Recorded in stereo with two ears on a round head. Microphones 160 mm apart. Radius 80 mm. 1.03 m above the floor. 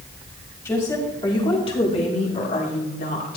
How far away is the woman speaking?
About 3.5 m.